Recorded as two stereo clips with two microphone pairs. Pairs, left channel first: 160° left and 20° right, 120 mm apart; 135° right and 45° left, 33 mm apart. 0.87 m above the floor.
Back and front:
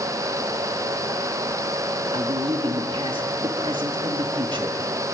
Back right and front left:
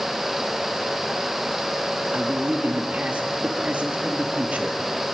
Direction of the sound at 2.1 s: 20° left.